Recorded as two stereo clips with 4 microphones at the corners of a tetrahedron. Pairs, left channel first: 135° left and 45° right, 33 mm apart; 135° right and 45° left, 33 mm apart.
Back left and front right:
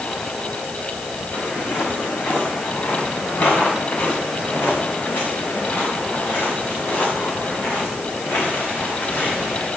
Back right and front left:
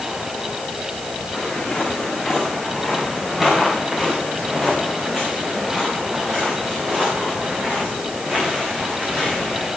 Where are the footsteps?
145° left, 5.5 m; by 9.7 s 100° left, 8.5 m.